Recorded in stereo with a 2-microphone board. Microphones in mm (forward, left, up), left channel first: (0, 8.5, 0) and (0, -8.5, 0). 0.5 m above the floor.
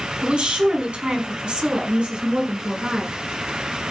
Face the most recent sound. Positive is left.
turn(degrees=-70)  # may be behind; listen again after turning